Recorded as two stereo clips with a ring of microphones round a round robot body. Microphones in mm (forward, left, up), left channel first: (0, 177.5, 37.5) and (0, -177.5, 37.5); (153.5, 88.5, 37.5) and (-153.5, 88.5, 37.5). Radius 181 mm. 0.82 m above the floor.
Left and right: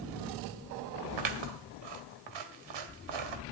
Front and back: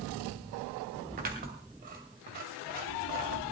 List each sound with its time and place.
1.2 s scissors: 110° right, 1.9 m